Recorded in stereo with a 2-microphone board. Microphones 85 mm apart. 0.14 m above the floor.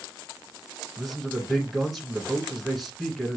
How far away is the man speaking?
About 1.4 m.